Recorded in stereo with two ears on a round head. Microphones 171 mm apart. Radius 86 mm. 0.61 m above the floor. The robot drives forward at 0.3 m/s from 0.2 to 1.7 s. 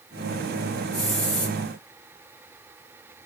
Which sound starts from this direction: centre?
A hiss, at 0.9 s.